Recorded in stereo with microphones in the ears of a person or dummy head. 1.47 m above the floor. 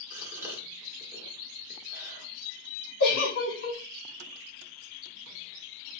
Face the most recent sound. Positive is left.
turn(degrees=50)  # may be behind; listen again after turning